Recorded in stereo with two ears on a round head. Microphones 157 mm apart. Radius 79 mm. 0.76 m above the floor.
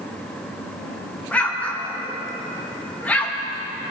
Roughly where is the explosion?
Centre.